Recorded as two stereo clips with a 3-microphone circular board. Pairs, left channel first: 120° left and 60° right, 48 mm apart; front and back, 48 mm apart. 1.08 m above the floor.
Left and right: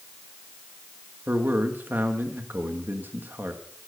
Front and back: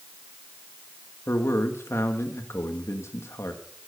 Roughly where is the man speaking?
Ahead.